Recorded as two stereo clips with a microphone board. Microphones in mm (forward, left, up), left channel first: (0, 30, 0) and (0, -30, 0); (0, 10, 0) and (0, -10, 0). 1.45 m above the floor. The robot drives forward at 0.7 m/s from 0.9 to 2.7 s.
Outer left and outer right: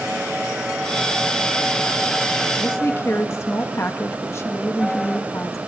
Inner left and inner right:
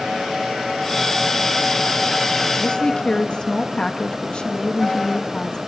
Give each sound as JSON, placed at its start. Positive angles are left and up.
{"t": 2.6, "sound": "a woman speaking", "side_deg": 45, "distance_m": 1.7}